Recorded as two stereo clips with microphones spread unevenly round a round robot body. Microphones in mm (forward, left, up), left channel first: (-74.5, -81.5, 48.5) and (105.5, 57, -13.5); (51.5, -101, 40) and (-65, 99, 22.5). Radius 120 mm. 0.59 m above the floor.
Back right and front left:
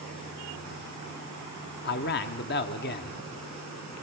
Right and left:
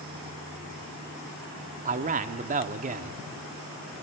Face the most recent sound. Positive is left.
turn(degrees=165)